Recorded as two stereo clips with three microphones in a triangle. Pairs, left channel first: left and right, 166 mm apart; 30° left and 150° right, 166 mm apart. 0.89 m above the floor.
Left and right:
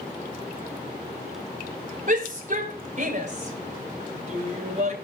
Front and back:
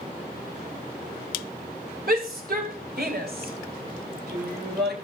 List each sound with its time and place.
2.1 s a shout: 130° right, 4.5 m; by 5.0 s 140° right, 6.5 m